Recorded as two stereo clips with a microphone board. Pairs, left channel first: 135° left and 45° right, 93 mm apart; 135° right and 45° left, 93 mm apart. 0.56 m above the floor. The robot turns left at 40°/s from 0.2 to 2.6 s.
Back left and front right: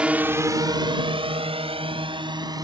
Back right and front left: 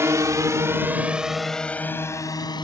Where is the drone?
25° left; by 2.6 s 95° right.